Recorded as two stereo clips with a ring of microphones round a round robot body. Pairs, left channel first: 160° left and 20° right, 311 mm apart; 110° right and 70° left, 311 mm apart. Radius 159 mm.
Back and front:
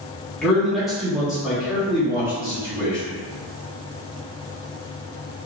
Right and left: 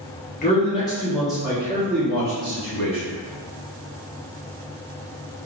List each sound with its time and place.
0.4 s a man speaking: 115° right, 1.1 m; by 3.0 s 55° left, 1.4 m